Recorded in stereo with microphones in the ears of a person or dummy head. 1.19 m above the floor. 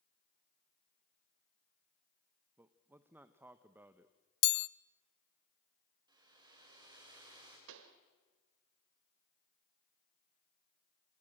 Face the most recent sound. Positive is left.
turn(degrees=-70)  # may be behind; listen again after turning